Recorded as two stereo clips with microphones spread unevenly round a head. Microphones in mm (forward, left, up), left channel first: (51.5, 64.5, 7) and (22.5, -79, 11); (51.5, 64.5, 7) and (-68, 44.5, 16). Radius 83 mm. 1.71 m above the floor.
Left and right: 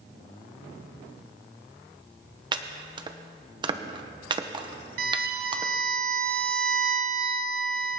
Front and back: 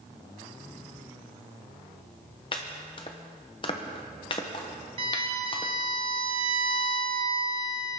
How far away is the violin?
About 1.0 m.